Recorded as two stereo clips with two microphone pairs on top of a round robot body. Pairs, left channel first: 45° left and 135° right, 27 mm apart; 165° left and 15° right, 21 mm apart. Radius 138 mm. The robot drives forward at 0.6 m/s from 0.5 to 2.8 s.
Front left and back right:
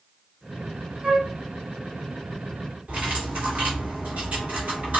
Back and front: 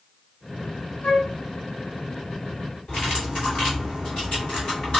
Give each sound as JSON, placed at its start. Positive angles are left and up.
{"t": 1.0, "sound": "a flute", "azimuth_deg": 170, "distance_m": 1.7}
{"t": 2.9, "sound": "cutlery clinking", "azimuth_deg": -170, "distance_m": 2.0}